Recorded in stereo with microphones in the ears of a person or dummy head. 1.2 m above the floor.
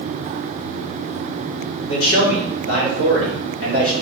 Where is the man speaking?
70° left (ahead or behind), 1.6 m.